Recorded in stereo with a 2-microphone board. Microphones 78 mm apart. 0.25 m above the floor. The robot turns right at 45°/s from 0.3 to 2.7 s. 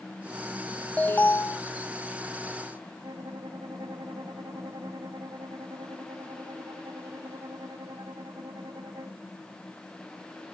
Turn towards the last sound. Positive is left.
turn(degrees=-60)  # may be behind; listen again after turning